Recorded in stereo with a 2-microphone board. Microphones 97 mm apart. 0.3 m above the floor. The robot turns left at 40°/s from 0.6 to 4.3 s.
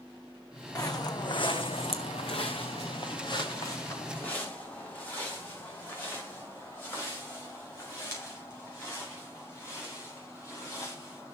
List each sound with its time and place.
0.8 s footsteps: 40° left (ahead or behind), 1.1 m; by 11.3 s 25° left (ahead or behind), 12 m